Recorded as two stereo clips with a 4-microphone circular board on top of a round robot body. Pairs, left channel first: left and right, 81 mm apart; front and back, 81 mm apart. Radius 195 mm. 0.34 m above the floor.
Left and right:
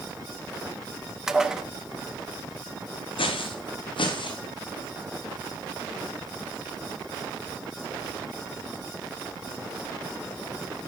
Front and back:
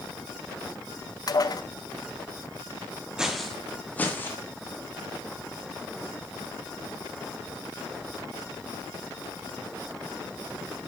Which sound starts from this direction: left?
Footsteps, at 3.2 s.